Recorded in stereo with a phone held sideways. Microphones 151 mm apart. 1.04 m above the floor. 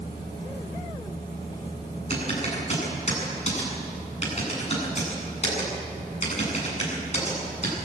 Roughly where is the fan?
Left.